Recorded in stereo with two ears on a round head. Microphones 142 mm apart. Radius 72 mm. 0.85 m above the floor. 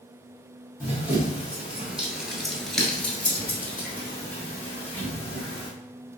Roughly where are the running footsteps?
Centre.